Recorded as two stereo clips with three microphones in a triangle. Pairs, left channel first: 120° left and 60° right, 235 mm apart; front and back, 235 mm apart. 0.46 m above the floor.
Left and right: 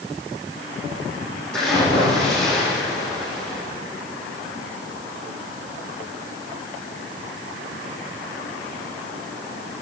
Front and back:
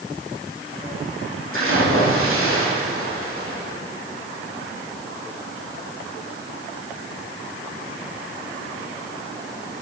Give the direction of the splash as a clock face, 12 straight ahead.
5 o'clock.